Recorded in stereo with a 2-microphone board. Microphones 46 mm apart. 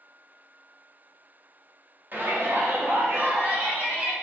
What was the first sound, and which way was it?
A shout, 50° right (ahead or behind).